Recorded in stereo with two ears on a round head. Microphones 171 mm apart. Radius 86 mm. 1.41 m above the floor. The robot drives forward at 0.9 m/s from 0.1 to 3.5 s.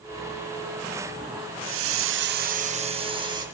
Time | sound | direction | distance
1.6 | a hiss | 65° right (ahead or behind) | 0.7 m